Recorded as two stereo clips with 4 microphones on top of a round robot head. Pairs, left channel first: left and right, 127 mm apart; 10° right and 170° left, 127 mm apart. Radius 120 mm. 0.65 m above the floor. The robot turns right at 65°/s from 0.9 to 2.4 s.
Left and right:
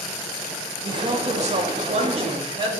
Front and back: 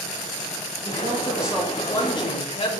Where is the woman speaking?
140° right, 1.4 m; by 2.8 s 40° right, 1.4 m.